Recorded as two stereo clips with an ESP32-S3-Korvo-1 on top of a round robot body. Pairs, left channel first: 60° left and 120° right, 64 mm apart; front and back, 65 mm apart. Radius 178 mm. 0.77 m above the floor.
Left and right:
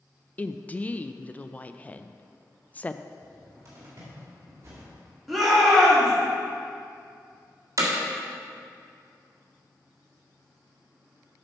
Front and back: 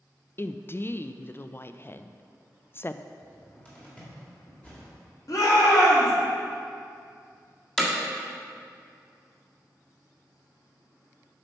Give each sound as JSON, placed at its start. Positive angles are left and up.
{"t": 0.4, "sound": "a woman speaking", "azimuth_deg": 10, "distance_m": 0.5}
{"t": 3.2, "sound": "a cupboard door", "azimuth_deg": -70, "distance_m": 1.9}
{"t": 5.3, "sound": "a shout", "azimuth_deg": -30, "distance_m": 2.0}
{"t": 7.8, "sound": "hammering", "azimuth_deg": -80, "distance_m": 1.7}